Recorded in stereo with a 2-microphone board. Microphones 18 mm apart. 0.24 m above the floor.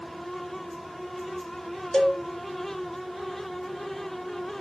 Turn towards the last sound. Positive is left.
turn(degrees=30)  # may be behind; listen again after turning